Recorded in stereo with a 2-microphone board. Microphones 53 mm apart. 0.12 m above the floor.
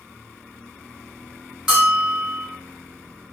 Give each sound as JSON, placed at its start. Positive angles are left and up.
{"t": 1.7, "sound": "a bell", "side_deg": -15, "distance_m": 1.8}